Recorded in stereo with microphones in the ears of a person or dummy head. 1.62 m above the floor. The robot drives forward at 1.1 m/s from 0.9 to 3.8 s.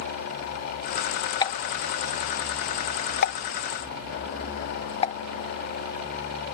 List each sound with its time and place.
1.4 s a pop: 25° left (ahead or behind); by 5.2 s 30° left (ahead or behind)